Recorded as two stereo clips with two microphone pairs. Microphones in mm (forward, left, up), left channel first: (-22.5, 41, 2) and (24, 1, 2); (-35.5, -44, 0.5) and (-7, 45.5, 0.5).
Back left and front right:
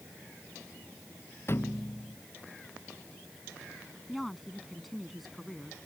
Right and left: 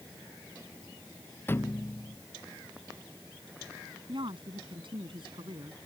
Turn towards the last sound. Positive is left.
turn(degrees=50)